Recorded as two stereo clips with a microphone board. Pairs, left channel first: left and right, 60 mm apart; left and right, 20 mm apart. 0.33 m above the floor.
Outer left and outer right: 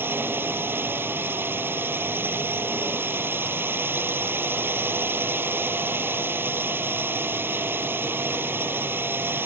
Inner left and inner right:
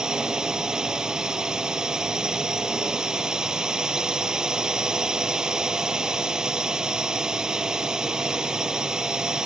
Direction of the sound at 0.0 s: 35° right (ahead or behind).